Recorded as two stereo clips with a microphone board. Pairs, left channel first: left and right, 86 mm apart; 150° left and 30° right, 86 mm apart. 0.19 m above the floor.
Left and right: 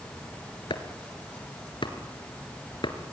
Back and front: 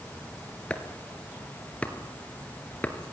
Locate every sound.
0.7 s chopping: 80° left, 2 m